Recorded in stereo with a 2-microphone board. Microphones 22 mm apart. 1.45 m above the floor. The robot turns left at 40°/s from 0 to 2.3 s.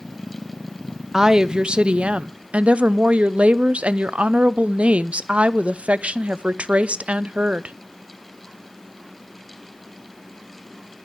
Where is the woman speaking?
20° right, 0.5 m; by 7.8 s 70° right, 0.5 m.